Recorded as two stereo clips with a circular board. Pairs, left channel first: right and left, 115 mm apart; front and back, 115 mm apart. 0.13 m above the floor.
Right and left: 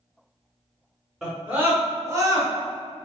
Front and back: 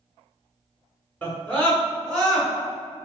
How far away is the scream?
About 1.3 m.